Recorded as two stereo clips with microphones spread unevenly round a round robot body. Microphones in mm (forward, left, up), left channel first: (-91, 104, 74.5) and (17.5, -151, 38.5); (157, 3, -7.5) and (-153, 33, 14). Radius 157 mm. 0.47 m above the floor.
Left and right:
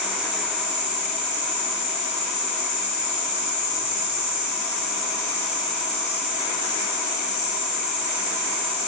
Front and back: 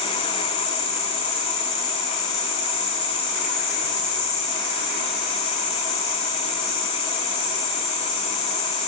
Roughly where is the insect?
Ahead left.